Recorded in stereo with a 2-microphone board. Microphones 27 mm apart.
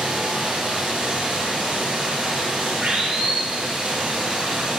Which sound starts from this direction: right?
Running water, at 0.0 s.